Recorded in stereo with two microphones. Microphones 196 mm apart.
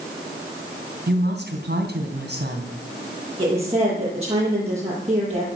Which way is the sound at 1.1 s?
60° right (ahead or behind).